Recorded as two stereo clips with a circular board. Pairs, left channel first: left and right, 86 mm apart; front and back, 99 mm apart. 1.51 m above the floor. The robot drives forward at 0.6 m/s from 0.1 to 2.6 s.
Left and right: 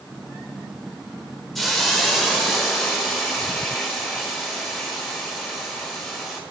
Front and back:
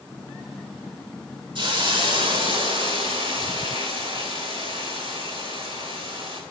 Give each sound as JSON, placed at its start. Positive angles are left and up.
{"t": 1.6, "sound": "a hiss", "azimuth_deg": 180, "distance_m": 1.8}